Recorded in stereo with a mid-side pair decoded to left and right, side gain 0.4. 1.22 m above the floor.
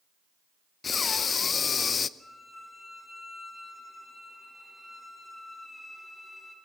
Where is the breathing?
50° left, 0.7 m.